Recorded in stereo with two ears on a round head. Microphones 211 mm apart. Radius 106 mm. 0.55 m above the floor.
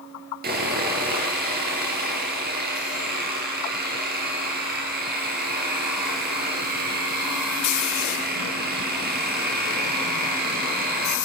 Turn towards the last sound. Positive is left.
turn(degrees=-40)  # may be behind; listen again after turning